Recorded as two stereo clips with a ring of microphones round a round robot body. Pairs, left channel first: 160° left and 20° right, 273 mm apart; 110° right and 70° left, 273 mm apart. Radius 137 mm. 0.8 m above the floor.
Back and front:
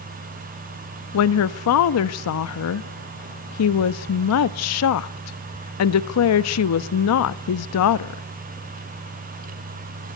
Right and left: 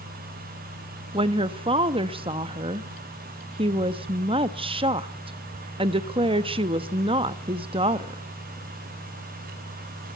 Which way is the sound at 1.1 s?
135° left.